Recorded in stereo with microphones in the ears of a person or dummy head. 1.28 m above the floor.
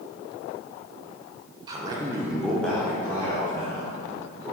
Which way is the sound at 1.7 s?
20° right (ahead or behind).